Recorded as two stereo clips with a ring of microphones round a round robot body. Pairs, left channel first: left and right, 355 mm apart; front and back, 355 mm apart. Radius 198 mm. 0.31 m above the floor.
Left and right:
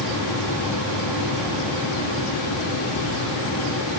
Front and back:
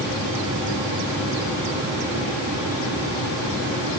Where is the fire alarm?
No fire alarm in this recording.